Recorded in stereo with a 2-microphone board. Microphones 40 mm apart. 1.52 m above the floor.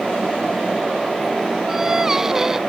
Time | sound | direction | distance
1.7 | singing | 10° right (ahead or behind) | ?